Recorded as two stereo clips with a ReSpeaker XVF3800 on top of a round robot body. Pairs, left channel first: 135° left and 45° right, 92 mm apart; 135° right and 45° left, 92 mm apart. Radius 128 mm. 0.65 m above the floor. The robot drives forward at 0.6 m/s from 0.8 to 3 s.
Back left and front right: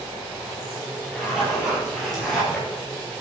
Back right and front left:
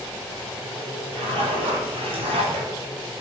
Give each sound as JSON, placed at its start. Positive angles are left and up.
{"t": 1.1, "sound": "a zipper", "azimuth_deg": 40, "distance_m": 6.0}